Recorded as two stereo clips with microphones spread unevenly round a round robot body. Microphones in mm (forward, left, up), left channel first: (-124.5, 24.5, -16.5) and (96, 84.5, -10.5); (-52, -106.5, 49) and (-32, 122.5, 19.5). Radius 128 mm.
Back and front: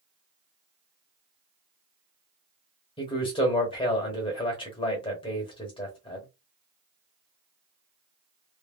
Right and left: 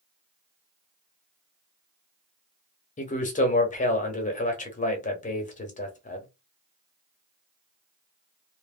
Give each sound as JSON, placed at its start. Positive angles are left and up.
{"t": 3.0, "sound": "a man speaking", "azimuth_deg": -125, "distance_m": 0.9}